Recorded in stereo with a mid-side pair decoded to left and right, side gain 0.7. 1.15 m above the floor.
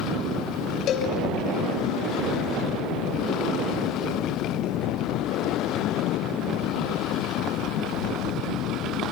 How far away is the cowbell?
About 3.5 m.